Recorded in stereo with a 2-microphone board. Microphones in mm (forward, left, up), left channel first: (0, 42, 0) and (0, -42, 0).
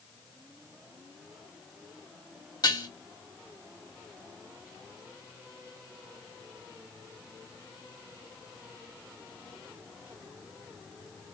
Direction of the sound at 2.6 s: 50° left (ahead or behind).